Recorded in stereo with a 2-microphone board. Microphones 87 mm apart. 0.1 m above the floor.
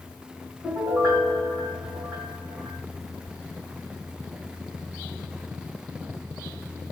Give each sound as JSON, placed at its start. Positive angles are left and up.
{"t": 0.6, "sound": "a piano", "side_deg": -45, "distance_m": 2.0}